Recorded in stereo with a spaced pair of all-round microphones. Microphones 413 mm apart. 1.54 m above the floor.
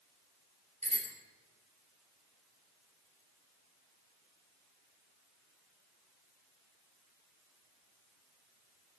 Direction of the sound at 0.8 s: 15° right (ahead or behind).